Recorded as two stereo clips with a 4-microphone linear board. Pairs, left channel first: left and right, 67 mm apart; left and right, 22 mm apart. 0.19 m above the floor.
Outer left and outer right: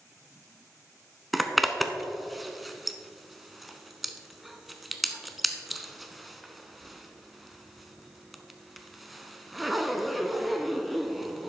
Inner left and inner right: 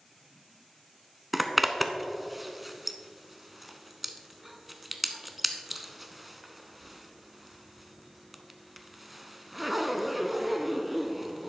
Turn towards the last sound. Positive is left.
turn(degrees=0)  # may be behind; listen again after turning